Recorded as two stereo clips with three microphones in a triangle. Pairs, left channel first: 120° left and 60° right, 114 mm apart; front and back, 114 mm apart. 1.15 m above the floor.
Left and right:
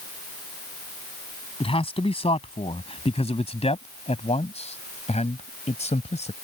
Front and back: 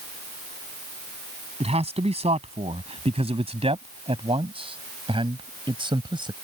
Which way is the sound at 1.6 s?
155° left.